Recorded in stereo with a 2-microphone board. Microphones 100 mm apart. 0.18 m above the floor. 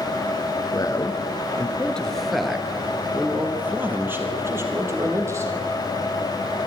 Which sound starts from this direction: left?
A man speaking, at 0.7 s.